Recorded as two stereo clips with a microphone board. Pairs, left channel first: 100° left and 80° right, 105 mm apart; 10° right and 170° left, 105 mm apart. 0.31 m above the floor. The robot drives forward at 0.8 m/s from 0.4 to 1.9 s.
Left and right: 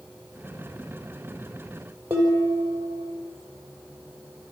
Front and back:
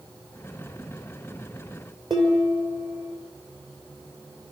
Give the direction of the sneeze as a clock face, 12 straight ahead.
I don't hear a sneeze.